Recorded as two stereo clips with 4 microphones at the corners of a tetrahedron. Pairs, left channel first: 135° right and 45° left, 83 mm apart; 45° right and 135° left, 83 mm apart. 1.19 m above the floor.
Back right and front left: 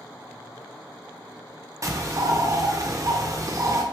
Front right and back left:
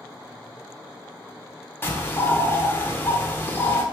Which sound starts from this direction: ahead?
A bird, at 1.8 s.